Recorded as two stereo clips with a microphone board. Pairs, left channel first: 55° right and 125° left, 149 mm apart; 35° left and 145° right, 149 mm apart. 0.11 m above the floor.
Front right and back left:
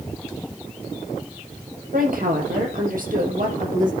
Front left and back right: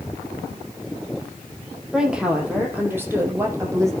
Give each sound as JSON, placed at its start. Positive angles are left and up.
{"t": 1.9, "sound": "a woman speaking", "azimuth_deg": 130, "distance_m": 5.5}